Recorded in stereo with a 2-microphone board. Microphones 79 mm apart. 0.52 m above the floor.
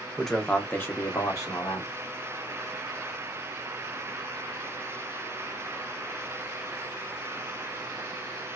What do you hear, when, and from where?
0.2 s a man speaking: centre (ahead or behind), 0.7 m; by 1.9 s 45° left (ahead or behind), 1.1 m